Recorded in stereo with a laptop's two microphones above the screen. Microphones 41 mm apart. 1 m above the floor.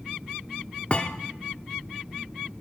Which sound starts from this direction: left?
A thud, at 0.9 s.